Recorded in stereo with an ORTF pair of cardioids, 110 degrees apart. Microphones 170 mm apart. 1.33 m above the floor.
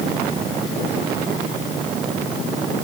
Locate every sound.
Only background noise.